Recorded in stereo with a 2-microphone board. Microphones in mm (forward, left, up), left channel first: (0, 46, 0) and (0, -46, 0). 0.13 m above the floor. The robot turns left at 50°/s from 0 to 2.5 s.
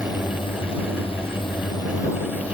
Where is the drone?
140° left; by 2.6 s 15° left.